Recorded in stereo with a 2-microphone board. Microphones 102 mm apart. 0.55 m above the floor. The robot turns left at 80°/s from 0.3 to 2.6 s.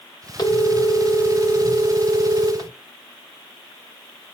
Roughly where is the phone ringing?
Ahead left.